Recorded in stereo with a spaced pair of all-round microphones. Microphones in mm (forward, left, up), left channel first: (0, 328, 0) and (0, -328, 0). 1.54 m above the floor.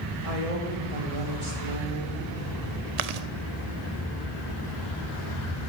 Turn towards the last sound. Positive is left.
turn(degrees=-75)  # may be behind; listen again after turning